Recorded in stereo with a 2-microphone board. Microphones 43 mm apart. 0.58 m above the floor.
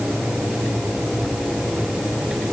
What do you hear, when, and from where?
Only background noise.